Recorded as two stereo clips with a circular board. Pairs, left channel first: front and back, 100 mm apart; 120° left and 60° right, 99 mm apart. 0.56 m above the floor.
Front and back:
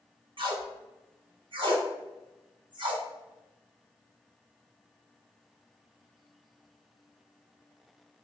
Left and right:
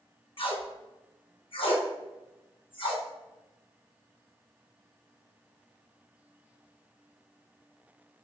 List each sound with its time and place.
0.4 s tape being pulled: 145° left, 0.7 m